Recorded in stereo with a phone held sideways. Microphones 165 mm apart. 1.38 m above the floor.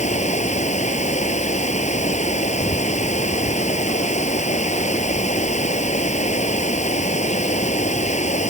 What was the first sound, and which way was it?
Running water, 45° left (ahead or behind).